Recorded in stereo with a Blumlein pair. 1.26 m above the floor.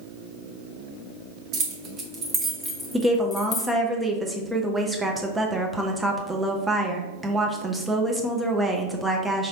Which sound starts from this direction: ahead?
A woman speaking, at 2.9 s.